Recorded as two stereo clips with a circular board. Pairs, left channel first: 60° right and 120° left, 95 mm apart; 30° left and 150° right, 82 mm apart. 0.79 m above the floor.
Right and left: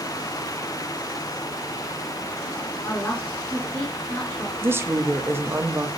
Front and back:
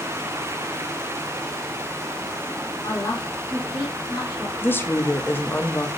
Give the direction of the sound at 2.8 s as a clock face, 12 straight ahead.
12 o'clock.